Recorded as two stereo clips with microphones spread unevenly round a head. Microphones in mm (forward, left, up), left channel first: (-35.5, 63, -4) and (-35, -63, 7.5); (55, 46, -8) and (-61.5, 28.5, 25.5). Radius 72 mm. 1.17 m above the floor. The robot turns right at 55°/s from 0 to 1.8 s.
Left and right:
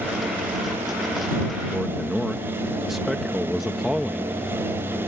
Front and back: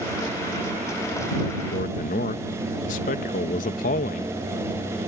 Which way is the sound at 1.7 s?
5° right.